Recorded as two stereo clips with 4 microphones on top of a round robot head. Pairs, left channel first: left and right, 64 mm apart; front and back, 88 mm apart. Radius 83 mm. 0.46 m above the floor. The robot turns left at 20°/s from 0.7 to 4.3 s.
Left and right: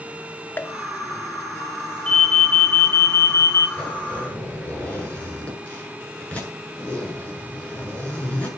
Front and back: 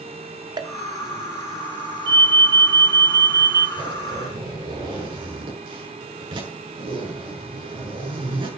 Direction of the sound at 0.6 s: 145° left.